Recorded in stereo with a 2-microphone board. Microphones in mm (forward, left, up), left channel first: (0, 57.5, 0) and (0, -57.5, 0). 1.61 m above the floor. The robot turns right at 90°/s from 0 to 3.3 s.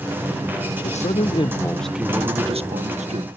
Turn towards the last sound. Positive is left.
turn(degrees=-55)